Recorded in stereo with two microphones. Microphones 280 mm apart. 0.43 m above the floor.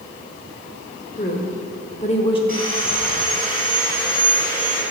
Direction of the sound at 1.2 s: 35° left (ahead or behind).